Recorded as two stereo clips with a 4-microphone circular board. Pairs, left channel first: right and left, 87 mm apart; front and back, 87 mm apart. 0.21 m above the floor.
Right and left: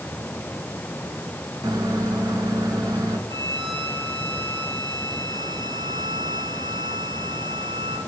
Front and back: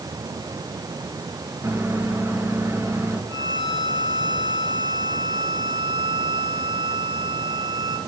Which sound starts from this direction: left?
A violin, at 3.3 s.